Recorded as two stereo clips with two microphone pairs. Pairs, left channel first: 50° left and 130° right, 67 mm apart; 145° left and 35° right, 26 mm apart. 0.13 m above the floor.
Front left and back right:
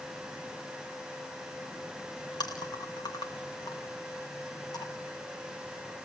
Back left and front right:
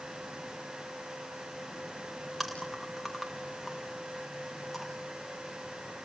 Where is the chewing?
60° left, 4 m.